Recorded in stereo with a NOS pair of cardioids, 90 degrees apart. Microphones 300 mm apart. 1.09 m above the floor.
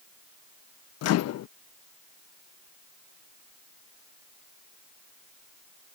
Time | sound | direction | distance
1.0 | a microwave | 60° left | ?